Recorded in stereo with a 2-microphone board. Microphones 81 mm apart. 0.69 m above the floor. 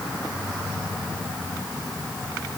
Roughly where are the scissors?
No scissors in this recording.